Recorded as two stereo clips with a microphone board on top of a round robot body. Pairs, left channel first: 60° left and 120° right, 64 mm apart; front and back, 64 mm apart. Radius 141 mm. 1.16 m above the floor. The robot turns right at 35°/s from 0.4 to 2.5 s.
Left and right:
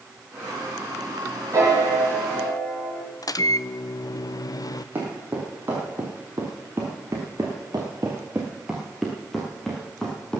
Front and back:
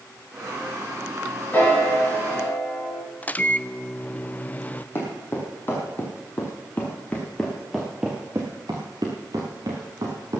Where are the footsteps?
55° right, 2.5 m; by 10.4 s 140° left, 1.9 m.